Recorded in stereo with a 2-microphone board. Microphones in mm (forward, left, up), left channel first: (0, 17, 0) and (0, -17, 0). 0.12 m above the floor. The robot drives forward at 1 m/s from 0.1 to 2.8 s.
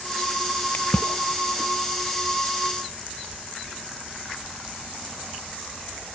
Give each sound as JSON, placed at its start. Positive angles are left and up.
{"t": 0.7, "sound": "a splash", "side_deg": 55}